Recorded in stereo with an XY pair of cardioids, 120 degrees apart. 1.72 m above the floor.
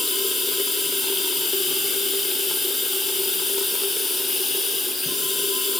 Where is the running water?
25° left, 1.0 m.